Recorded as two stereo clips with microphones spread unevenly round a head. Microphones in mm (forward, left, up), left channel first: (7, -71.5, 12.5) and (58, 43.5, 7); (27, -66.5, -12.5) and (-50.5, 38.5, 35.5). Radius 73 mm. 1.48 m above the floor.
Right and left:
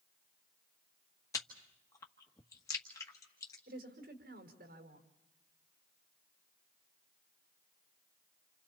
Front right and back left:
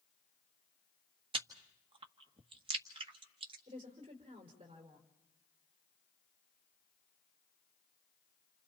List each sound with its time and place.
1.3 s chewing: 175° left, 1.6 m
3.7 s a woman speaking: 70° left, 5 m